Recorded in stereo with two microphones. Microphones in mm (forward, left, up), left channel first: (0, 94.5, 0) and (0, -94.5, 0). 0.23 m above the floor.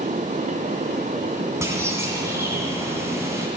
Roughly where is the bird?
Centre.